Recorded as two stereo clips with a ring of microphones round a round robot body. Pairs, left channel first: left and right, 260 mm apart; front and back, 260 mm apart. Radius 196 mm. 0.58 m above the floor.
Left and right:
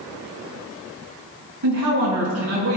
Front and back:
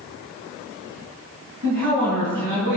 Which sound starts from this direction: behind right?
A man speaking, at 1.6 s.